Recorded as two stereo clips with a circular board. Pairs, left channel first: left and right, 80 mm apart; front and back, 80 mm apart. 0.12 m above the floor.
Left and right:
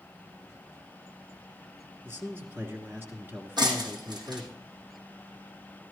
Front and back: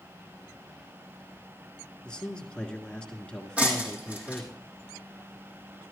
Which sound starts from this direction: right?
Breaking glass, at 3.6 s.